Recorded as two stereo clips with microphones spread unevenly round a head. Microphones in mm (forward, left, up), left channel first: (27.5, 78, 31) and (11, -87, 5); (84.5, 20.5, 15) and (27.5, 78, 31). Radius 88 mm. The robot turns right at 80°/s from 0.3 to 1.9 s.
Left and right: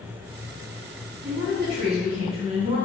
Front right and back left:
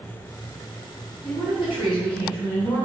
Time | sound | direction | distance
1.2 | a woman speaking | 100° right | 2.5 m